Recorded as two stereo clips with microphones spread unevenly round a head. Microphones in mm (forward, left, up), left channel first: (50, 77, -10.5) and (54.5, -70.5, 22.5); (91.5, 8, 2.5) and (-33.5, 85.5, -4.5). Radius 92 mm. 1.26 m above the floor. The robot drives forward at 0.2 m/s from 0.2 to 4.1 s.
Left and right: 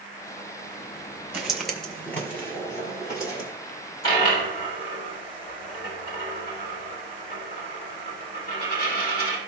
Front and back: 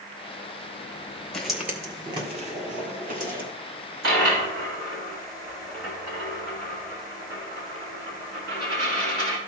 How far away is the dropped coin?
About 4 m.